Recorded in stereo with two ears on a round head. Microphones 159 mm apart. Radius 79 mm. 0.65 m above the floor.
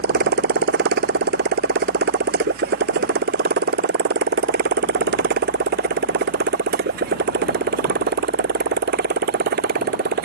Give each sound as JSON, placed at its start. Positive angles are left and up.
{"t": 0.0, "sound": "a motorcycle", "side_deg": -60}